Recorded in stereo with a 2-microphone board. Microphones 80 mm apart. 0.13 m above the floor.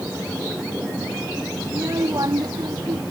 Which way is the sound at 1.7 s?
45° right (ahead or behind).